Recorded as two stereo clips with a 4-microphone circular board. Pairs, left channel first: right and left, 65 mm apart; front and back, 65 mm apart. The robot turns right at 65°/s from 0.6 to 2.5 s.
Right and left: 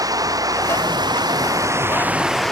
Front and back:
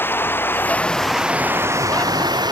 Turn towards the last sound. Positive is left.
turn(degrees=-175)